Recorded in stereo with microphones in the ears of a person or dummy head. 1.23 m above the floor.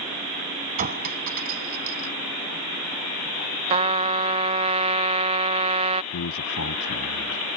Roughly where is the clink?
Right.